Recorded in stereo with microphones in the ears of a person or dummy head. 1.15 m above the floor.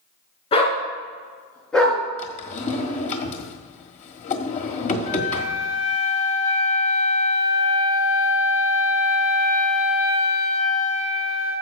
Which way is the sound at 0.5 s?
30° left (ahead or behind).